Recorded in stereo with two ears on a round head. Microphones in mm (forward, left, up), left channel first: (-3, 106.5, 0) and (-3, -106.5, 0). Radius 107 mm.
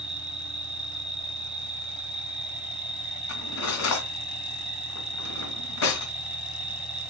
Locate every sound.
0.0 s an insect: 5° right (ahead or behind), 2 m
3.3 s cutlery clinking: 70° left (ahead or behind), 2.5 m